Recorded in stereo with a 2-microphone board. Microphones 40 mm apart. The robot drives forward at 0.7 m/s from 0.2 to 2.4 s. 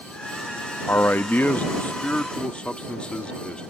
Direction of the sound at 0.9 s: 55° left (ahead or behind).